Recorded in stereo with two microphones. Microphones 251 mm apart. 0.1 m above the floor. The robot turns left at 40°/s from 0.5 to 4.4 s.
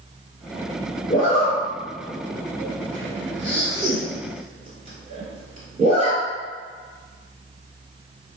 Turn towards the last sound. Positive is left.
turn(degrees=-25)  # may be behind; listen again after turning